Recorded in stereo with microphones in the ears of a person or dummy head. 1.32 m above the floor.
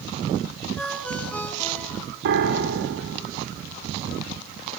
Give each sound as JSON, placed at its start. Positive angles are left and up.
{"t": 0.8, "sound": "a ringtone", "side_deg": 5, "distance_m": 4.5}
{"t": 2.2, "sound": "a piano", "side_deg": -60, "distance_m": 1.5}